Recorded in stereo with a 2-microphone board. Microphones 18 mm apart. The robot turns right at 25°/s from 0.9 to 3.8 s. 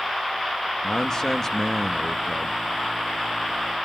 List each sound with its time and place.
0.8 s a man speaking: 140° left, 1.1 m; by 2.6 s straight behind, 1.1 m